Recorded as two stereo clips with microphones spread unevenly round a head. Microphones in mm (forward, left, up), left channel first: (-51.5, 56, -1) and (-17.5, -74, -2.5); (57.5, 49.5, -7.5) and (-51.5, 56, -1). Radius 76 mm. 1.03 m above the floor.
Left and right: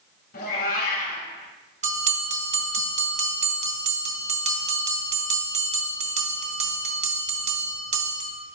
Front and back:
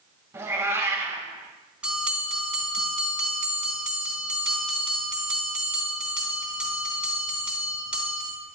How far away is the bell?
About 1.5 m.